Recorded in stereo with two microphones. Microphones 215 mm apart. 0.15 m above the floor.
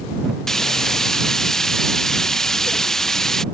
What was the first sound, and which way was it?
Frying, centre (ahead or behind).